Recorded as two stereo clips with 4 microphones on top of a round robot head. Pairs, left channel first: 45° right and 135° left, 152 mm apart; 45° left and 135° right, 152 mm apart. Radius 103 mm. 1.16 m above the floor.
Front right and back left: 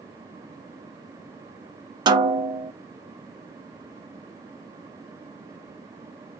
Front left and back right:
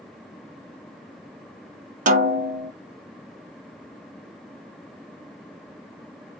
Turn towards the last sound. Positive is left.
turn(degrees=-165)